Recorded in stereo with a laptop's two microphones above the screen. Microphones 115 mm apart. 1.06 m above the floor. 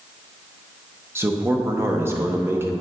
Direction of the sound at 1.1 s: 20° right (ahead or behind).